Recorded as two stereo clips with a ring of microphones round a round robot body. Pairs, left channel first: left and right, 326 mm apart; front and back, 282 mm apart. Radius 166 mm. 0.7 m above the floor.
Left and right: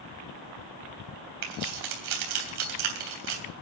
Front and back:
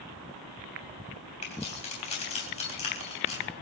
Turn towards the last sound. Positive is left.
turn(degrees=-70)